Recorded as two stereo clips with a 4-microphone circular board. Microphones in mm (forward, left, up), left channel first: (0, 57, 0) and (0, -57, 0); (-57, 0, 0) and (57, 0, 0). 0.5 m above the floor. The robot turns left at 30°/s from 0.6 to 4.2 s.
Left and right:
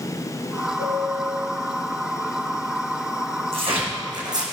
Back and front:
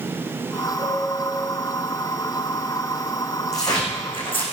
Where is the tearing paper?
120° right, 4.5 m; by 4.4 s 140° right, 4.5 m.